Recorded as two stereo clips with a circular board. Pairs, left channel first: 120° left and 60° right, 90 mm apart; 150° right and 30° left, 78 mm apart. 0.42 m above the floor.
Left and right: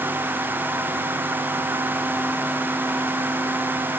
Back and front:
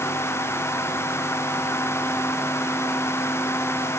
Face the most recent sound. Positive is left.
No sound to turn to.